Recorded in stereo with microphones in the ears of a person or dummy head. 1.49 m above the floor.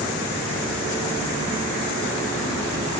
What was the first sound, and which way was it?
Only background noise.